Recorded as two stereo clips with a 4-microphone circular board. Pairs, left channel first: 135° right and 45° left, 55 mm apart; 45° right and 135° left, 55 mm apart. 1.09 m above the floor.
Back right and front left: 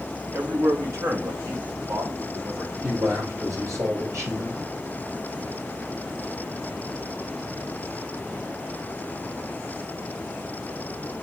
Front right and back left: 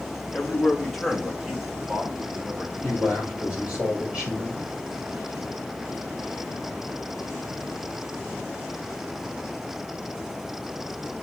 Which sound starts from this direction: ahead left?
A man speaking, at 0.3 s.